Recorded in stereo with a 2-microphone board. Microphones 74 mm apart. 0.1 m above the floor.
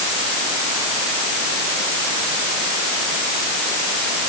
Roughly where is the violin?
No violin in this recording.